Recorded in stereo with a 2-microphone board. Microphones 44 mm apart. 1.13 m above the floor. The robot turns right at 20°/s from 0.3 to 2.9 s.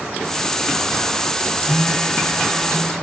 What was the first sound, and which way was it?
A phone buzzing, 30° right (ahead or behind).